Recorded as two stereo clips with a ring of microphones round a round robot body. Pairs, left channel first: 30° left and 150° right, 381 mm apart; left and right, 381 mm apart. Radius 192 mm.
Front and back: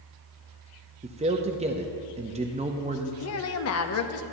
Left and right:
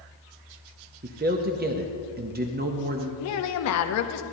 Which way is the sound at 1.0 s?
105° right.